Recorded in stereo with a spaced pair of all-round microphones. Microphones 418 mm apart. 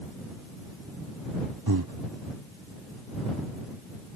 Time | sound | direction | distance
1.7 | breathing | 55° right (ahead or behind) | ?